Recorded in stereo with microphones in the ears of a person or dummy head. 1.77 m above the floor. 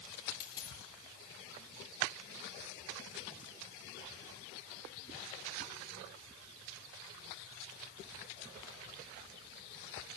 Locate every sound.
0.4 s a dropped coin: 20° left (ahead or behind), 5 m